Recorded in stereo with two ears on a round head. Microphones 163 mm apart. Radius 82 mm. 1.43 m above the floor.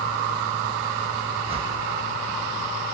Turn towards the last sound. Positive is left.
turn(degrees=-35)  # may be behind; listen again after turning